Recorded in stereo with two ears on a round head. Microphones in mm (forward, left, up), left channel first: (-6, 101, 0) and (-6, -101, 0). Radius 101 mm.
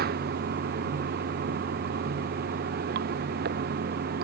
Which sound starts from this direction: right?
Running water, at 0.0 s.